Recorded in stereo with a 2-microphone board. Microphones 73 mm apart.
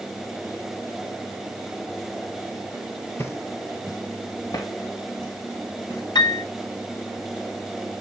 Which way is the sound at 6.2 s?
85° left.